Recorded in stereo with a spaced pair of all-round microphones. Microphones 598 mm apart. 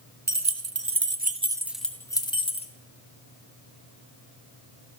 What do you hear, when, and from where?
0.3 s keys jangling: 25° right (ahead or behind), 0.9 m; by 2.7 s 10° left (ahead or behind), 1.3 m